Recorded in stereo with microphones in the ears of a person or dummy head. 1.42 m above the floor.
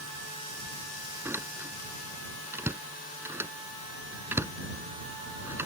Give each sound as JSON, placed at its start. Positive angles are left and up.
{"t": 1.2, "sound": "a door slam", "side_deg": -15}